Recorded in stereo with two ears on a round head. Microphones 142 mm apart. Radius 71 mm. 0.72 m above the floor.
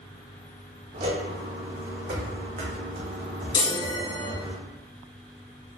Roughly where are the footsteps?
Right.